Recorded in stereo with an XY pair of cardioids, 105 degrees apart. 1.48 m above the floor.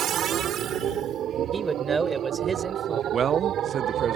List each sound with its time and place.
0.0 s a machine running: 65° right
1.5 s a man speaking: 30° right
3.1 s a man speaking: 50° right